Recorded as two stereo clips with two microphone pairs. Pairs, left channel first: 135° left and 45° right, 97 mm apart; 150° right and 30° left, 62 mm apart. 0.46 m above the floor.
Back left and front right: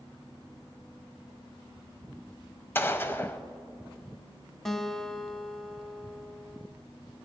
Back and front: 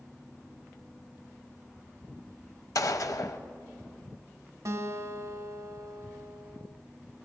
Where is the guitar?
50° left, 0.7 m.